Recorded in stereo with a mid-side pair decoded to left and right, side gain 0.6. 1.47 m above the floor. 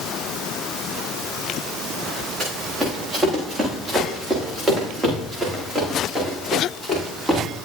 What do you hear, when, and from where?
2.4 s running footsteps: 25° right, 8 m; by 7.4 s 15° right, 9.5 m